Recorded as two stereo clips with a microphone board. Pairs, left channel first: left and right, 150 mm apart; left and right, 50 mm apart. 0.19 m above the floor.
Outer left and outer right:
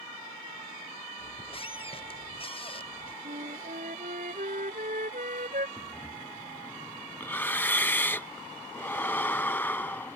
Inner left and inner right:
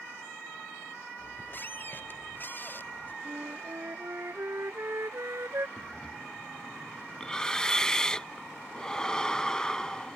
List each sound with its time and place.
1.2 s a squeak: 40° left (ahead or behind)
3.2 s a flute: 65° right (ahead or behind)
5.8 s breathing: 15° left (ahead or behind)